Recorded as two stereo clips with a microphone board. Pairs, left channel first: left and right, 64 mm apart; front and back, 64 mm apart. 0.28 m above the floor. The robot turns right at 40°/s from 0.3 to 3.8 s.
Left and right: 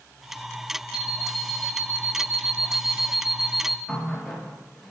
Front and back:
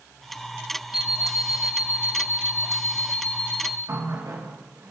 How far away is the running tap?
About 3.5 m.